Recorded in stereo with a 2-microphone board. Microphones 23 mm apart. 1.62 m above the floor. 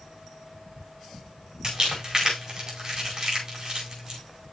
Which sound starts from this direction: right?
Crumpling, at 1.6 s.